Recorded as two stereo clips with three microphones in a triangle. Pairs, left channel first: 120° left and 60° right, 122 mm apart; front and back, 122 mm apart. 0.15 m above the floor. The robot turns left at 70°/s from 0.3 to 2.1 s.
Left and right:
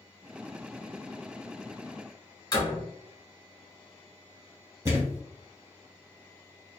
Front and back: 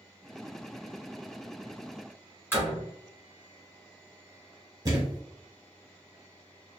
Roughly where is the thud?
Behind right.